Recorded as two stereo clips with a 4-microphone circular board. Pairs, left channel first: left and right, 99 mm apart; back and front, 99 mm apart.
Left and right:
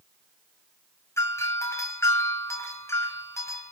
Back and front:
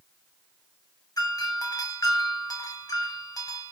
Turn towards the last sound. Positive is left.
turn(degrees=145)